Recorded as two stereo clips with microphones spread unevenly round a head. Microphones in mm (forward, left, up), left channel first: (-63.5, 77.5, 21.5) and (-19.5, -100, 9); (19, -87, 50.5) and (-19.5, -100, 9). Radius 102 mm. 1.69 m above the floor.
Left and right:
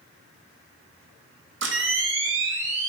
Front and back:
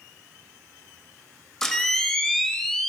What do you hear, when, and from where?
1.6 s a camera shutter: 40° right, 3.5 m